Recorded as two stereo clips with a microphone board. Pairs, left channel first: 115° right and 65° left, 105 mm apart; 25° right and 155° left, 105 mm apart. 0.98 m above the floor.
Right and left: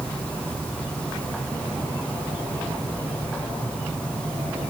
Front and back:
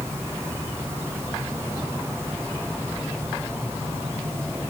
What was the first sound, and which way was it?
Only background noise.